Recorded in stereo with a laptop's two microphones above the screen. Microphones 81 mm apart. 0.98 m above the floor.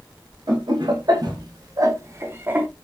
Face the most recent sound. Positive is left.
turn(degrees=-20)  # may be behind; listen again after turning